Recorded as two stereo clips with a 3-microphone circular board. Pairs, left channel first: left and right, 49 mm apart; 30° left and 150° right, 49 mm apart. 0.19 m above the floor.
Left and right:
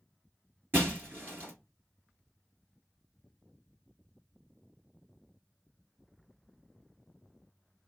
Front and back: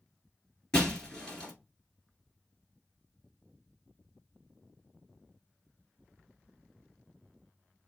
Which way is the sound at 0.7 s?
45° right.